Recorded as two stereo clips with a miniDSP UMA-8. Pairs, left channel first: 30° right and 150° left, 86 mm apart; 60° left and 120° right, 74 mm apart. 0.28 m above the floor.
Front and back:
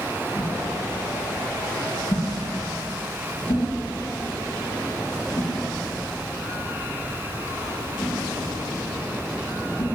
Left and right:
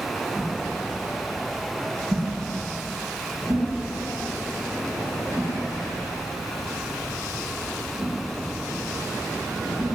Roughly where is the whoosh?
Right.